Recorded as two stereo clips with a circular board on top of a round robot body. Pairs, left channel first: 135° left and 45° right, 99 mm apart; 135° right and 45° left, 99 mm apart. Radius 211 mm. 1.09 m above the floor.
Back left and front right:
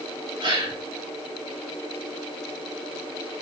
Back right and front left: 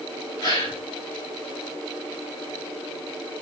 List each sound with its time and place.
0.4 s a gasp: 85° right, 4 m